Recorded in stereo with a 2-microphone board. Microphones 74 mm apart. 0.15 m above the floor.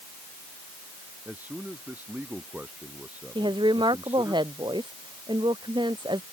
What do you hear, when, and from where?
1.2 s a man speaking: 20° right (ahead or behind)
3.4 s a woman speaking: 85° right